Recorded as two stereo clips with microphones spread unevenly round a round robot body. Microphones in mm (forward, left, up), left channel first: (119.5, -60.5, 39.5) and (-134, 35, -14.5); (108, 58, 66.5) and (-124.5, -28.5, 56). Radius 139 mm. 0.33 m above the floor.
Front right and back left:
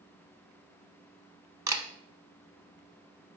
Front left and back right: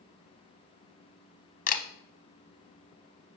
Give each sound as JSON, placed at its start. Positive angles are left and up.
{"t": 1.7, "sound": "a camera shutter", "azimuth_deg": 80, "distance_m": 0.7}